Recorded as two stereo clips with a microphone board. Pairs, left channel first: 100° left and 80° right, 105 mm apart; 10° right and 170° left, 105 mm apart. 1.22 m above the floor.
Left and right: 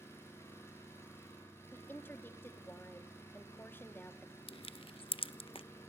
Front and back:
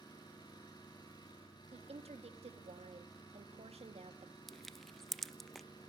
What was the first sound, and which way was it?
An engine running, 35° left.